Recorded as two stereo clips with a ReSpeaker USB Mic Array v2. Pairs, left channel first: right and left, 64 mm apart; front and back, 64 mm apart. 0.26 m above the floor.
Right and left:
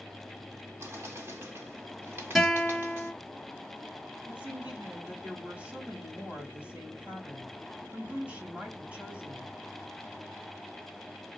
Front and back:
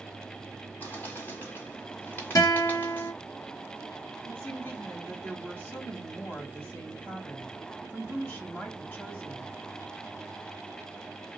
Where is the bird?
50° left, 2.5 m.